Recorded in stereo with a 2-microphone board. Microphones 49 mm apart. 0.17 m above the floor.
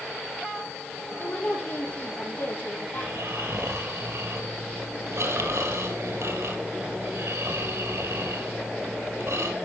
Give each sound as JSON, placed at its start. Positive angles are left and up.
{"t": 1.2, "sound": "a woman speaking", "side_deg": 50, "distance_m": 5.0}
{"t": 3.0, "sound": "snoring", "side_deg": -70, "distance_m": 3.0}